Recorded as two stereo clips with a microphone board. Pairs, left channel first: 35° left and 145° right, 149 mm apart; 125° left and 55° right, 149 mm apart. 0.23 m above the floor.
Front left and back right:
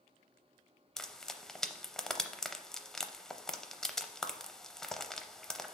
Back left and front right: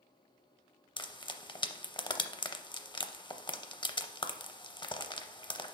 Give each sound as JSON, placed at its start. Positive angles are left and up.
{"t": 1.0, "sound": "frying", "azimuth_deg": 120, "distance_m": 0.5}